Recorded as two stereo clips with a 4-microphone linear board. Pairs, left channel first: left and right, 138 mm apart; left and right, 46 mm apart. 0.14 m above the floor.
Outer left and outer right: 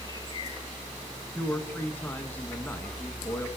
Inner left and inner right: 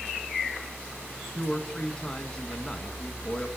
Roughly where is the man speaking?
Centre.